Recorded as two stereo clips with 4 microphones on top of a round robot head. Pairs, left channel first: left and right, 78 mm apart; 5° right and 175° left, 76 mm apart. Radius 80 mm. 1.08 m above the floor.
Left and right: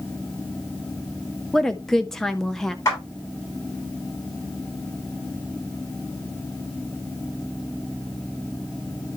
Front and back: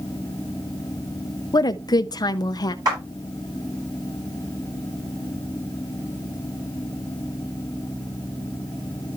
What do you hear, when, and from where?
1.5 s a woman speaking: 5° left, 0.5 m
2.9 s a clap: 140° left, 8.5 m